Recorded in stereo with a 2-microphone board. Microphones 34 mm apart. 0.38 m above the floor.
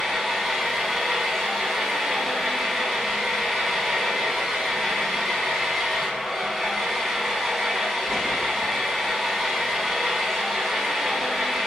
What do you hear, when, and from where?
0.0 s an engine running: centre (ahead or behind), 2.5 m